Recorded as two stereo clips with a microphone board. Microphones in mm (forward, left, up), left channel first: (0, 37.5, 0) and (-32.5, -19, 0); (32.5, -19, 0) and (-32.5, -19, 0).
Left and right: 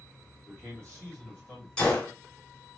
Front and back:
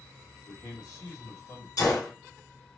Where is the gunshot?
15° right, 2.5 m.